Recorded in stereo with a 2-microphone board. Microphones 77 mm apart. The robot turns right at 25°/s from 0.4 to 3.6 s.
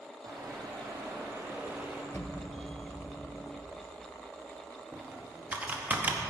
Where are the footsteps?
60° right (ahead or behind), 2.5 m; by 2.0 s 15° right (ahead or behind), 2 m.